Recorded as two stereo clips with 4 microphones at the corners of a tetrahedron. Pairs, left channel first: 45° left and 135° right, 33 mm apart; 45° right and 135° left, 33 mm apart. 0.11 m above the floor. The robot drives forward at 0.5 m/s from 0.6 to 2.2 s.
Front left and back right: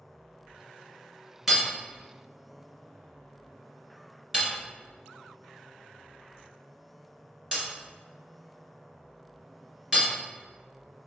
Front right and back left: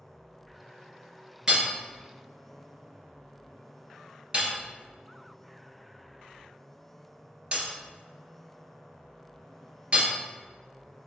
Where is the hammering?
150° left, 1.0 m; by 10.1 s 165° left, 1.1 m.